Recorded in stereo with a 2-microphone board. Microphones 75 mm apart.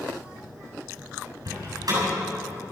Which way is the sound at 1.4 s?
55° right (ahead or behind).